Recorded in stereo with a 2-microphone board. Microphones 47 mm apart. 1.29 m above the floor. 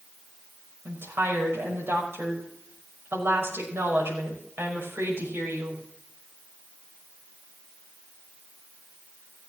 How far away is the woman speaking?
About 6 m.